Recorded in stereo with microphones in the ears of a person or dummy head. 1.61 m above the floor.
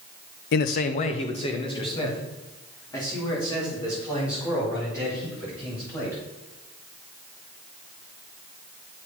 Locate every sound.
0.5 s a man speaking: 55° left (ahead or behind), 0.7 m; by 6.2 s 15° left (ahead or behind), 7 m